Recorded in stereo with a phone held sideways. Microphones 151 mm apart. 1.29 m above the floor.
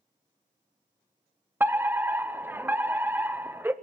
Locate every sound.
1.6 s a fire alarm: 15° right (ahead or behind), 0.9 m